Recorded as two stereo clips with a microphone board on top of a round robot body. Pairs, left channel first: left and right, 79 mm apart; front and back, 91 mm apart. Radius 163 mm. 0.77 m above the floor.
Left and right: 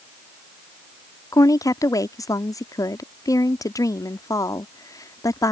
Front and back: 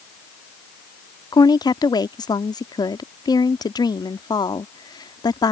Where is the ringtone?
I don't hear a ringtone.